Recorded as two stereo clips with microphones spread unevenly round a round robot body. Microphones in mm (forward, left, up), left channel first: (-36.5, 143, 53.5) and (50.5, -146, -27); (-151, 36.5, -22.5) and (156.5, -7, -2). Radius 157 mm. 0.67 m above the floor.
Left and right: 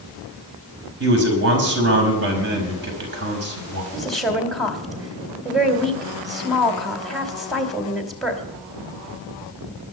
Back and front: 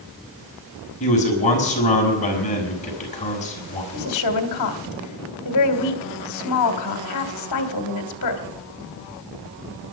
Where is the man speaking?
120° right, 5 m.